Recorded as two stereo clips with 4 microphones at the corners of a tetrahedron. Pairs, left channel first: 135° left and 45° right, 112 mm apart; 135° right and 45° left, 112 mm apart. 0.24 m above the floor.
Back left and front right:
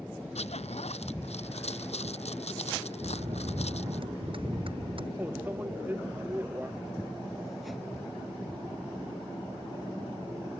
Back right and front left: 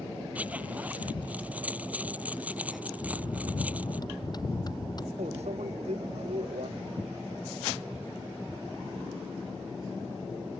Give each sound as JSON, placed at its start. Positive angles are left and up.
{"t": 0.3, "sound": "a zipper", "azimuth_deg": 120}
{"t": 3.0, "sound": "a bell", "azimuth_deg": -85}
{"t": 5.2, "sound": "a microwave", "azimuth_deg": 30}